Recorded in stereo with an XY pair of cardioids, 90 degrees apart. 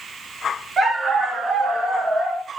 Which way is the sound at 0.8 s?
45° right.